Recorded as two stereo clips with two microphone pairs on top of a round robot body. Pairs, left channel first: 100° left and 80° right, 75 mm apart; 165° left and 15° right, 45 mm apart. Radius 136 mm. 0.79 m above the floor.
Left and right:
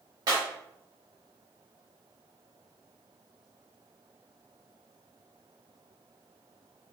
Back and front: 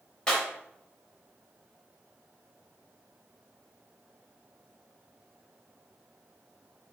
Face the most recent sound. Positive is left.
turn(degrees=-115)